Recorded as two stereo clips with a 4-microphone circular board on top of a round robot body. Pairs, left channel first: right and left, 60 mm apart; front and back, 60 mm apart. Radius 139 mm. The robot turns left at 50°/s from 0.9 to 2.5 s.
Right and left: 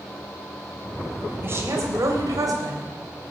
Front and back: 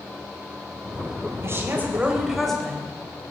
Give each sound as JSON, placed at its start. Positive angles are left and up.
{"t": 1.4, "sound": "a woman speaking", "azimuth_deg": 140, "distance_m": 3.5}